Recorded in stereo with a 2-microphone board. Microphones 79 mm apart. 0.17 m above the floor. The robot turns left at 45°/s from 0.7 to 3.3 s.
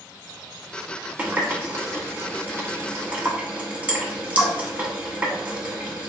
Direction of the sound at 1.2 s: 20° right (ahead or behind).